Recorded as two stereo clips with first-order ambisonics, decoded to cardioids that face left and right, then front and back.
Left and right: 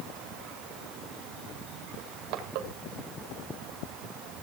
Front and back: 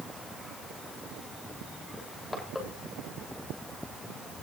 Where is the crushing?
80° right, 3 m.